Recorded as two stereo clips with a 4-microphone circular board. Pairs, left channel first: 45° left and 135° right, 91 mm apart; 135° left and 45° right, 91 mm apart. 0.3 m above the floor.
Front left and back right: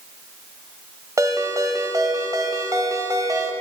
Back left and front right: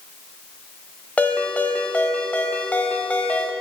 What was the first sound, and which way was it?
A ringtone, 160° right.